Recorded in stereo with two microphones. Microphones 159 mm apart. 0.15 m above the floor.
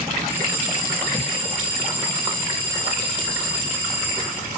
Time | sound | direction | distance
0.3 | a bell | 70° left (ahead or behind) | 5.5 m